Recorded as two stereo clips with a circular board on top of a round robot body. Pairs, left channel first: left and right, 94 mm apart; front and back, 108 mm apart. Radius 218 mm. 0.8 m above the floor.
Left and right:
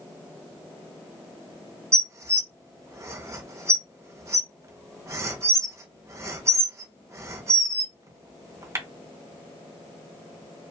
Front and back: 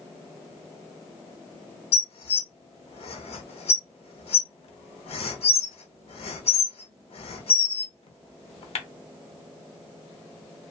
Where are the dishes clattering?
30° right, 0.6 m.